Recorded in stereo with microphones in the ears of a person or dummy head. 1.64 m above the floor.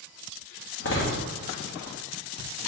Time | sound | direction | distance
0.8 | a door slam | 65° left (ahead or behind) | 1.2 m